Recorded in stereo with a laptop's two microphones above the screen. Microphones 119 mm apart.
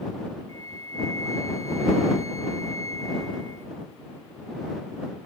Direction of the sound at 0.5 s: 70° right (ahead or behind).